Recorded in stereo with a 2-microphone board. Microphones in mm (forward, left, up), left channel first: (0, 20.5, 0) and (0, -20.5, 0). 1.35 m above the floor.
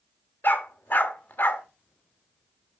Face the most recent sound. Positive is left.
turn(degrees=50)  # may be behind; listen again after turning